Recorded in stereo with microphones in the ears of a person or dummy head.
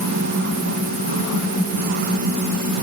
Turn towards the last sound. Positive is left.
No sound to turn to.